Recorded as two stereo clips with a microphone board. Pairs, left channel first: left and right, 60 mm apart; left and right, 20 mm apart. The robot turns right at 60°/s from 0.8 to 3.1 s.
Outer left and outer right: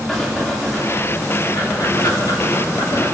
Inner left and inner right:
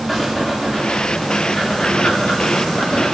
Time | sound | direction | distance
0.1 | breathing | centre (ahead or behind) | 7 m